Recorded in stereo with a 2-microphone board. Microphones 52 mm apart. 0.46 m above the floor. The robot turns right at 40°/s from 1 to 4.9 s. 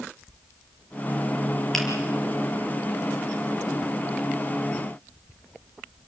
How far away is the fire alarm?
No fire alarm in this recording.